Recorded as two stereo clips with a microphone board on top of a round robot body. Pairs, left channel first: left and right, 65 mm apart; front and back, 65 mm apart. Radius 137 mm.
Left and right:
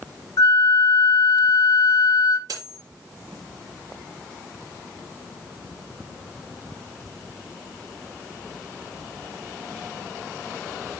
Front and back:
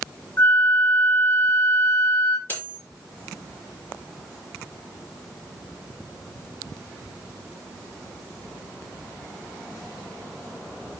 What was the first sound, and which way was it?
A flute, 65° left.